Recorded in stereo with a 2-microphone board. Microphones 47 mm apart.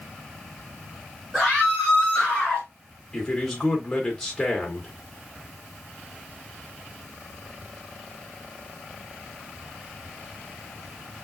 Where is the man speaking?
5° left (ahead or behind), 3 m.